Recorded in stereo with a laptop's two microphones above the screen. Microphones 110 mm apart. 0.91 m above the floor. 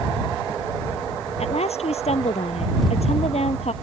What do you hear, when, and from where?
1.4 s a woman speaking: 70° left (ahead or behind)